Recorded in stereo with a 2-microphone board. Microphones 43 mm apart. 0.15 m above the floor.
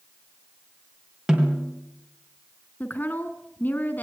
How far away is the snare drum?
About 3 m.